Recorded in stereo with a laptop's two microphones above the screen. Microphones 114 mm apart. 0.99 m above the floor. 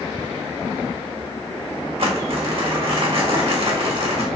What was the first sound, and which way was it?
Crumpling, 60° right (ahead or behind).